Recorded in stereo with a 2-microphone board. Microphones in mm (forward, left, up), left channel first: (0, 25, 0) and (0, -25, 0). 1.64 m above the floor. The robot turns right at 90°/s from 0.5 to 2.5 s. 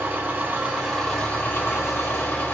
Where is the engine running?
45° right, 1.9 m; by 2.5 s 135° left, 1.9 m.